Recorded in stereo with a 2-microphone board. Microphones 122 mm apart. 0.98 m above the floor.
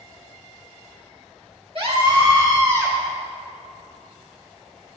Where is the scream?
50° right (ahead or behind), 1.9 m; by 3.0 s 25° right (ahead or behind), 2.5 m.